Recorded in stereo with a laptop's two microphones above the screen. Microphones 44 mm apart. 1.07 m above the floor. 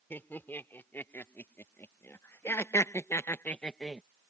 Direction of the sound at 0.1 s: 50° left (ahead or behind).